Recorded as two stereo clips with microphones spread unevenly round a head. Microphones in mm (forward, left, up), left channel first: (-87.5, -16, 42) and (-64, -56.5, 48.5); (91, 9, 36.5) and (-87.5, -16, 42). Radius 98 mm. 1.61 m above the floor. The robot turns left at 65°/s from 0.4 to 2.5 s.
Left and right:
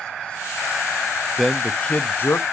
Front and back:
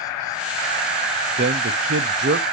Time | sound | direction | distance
1.4 | a man speaking | 140° right | 0.5 m